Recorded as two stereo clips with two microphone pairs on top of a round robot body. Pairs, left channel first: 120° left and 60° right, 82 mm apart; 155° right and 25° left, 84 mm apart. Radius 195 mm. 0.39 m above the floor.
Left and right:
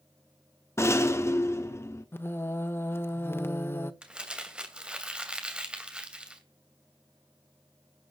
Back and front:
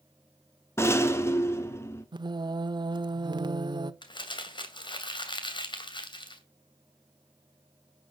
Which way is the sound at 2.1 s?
55° left.